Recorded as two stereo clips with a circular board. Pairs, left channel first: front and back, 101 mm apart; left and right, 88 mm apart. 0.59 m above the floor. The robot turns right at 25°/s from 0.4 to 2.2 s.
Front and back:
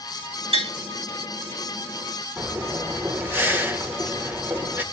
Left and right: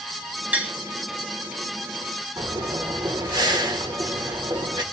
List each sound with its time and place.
0.5 s tapping: 165° right, 2.5 m; by 0.7 s 160° right, 2.5 m
2.4 s breathing: 115° right, 2 m